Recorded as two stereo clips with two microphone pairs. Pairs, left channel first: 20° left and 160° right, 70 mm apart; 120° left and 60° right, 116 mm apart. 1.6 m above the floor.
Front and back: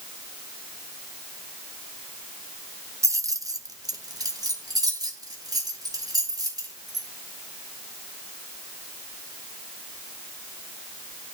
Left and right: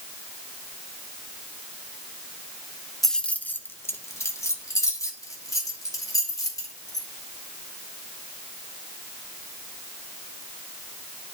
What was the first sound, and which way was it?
Keys jangling, 155° right.